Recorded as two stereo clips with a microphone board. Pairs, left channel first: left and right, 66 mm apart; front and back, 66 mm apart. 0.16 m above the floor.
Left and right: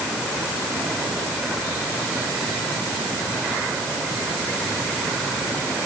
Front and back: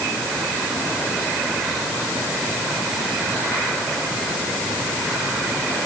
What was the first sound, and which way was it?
Only background noise.